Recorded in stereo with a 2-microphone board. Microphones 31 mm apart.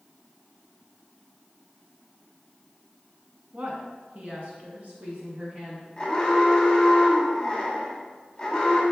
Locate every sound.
3.5 s a woman speaking: 45° right (ahead or behind), 1.6 m; by 5.9 s 50° right (ahead or behind), 3 m
6.0 s an alarm: 15° left (ahead or behind), 1.8 m